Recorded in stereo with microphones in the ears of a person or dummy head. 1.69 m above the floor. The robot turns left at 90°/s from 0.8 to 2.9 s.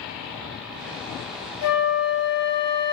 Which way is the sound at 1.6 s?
85° left.